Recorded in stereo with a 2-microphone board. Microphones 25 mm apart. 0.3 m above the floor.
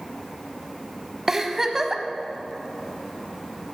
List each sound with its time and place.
1.3 s a giggle: 20° right (ahead or behind), 0.5 m